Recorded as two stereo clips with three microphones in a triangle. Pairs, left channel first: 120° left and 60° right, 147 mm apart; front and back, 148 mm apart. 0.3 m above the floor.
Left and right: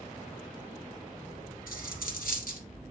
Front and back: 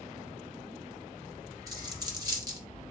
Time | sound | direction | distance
1.7 | a dropped coin | 115° left | 1.8 m